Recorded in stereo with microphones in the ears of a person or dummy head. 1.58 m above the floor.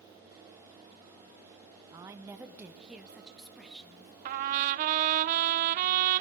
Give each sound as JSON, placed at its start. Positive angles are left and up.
{"t": 1.9, "sound": "a woman speaking", "side_deg": -20, "distance_m": 0.6}
{"t": 4.2, "sound": "a trumpet", "side_deg": -45, "distance_m": 0.5}